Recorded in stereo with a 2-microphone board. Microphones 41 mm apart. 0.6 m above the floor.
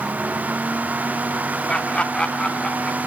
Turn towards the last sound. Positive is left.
turn(degrees=15)  # may be behind; listen again after turning